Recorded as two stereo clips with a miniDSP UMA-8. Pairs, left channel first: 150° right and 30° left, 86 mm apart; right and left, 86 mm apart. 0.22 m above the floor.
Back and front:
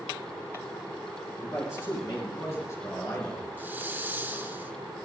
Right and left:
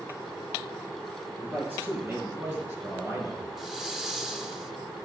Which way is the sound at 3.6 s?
10° left.